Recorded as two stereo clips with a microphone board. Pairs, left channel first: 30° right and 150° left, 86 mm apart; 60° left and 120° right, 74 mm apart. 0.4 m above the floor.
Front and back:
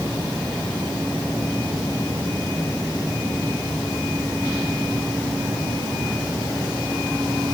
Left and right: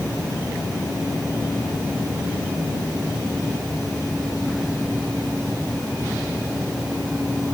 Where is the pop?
I don't hear a pop.